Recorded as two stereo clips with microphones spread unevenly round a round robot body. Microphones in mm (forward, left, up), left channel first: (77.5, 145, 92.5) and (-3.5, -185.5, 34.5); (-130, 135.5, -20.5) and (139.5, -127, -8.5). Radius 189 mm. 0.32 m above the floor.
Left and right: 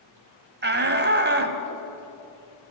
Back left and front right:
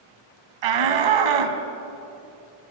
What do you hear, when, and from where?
0.6 s a shout: 50° right, 2.5 m